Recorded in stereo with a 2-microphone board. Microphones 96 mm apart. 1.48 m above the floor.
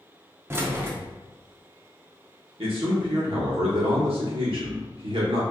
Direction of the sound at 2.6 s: 80° right.